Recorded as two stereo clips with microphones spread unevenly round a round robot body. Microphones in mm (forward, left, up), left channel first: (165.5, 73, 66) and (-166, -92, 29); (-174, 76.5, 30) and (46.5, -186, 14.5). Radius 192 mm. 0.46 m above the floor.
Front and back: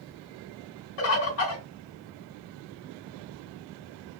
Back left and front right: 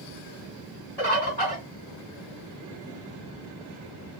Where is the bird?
50° left, 1.2 m.